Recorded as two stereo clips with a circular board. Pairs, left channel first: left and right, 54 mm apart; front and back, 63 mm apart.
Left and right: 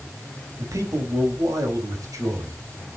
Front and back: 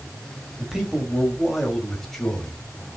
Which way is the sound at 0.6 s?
100° right.